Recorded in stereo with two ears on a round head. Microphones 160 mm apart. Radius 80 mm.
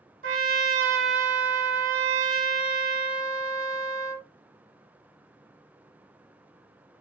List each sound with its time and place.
0.2 s a trumpet: 50° right (ahead or behind), 1.1 m